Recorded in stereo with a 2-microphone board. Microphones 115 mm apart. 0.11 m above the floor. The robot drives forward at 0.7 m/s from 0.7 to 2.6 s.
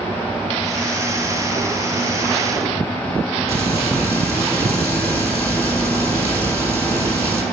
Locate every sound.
3.5 s frying: 25° right (ahead or behind), 2.5 m